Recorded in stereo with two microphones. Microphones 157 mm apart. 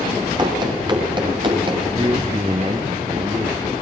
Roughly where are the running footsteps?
Right.